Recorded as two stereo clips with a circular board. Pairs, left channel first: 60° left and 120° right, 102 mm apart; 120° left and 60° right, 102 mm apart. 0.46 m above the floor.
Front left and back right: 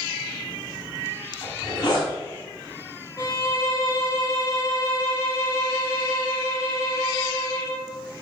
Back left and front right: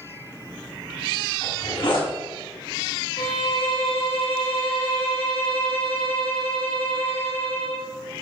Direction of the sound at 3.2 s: 115° left.